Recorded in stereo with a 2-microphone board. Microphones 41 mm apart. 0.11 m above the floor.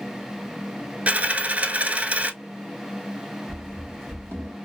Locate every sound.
1.1 s a dropped coin: 35° right (ahead or behind), 0.5 m
3.5 s running footsteps: 85° right, 2 m; by 4.5 s 80° right, 1.5 m